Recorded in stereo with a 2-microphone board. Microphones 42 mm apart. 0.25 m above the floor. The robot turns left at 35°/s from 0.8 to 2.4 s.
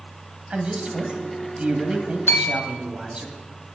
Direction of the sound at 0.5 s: 70° right.